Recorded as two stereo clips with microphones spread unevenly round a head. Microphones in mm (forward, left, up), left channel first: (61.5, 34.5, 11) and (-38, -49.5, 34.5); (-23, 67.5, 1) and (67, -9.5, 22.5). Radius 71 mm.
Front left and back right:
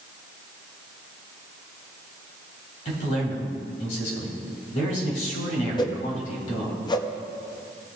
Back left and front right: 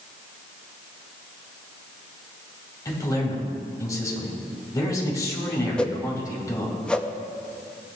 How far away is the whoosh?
About 0.8 m.